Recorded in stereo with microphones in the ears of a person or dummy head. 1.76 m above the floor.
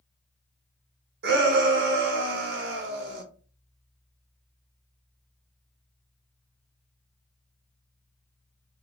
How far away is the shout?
About 1.2 m.